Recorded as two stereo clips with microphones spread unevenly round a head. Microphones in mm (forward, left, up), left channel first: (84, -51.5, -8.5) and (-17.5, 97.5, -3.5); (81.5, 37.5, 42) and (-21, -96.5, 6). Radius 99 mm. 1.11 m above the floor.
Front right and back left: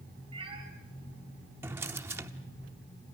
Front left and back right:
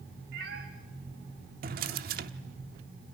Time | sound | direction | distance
0.3 | a cat meowing | 170° right | 3 m
1.6 | a drawer | 165° right | 0.8 m